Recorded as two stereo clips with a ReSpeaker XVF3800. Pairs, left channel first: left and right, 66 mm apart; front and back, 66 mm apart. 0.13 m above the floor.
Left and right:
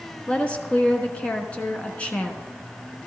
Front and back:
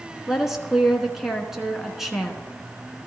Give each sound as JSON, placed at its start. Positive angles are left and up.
{"t": 0.3, "sound": "a woman speaking", "azimuth_deg": 105, "distance_m": 1.1}